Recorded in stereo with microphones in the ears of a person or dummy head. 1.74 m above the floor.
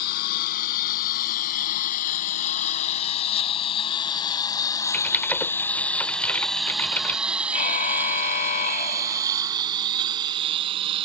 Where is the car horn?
40° left (ahead or behind).